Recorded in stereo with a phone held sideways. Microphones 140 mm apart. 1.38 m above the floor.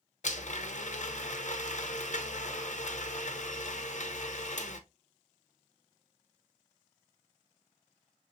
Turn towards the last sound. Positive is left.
turn(degrees=65)  # may be behind; listen again after turning